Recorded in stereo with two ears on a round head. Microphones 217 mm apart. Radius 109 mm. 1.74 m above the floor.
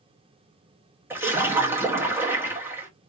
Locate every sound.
1.1 s a splash: 10° right (ahead or behind), 1.1 m